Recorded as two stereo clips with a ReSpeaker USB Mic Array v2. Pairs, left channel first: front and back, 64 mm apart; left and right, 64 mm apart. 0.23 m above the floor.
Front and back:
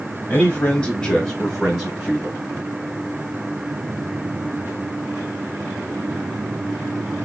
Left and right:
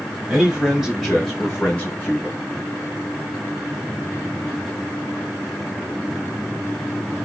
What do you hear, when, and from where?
0.3 s a man speaking: 35° right, 1.0 m; by 2.4 s 125° left, 1.1 m